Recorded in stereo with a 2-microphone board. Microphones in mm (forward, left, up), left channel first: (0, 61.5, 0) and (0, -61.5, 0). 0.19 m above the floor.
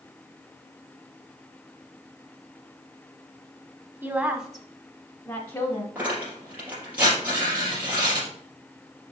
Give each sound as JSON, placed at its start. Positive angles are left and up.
{"t": 4.0, "sound": "a woman speaking", "side_deg": -15, "distance_m": 1.2}
{"t": 6.0, "sound": "tearing paper", "side_deg": -10, "distance_m": 4.0}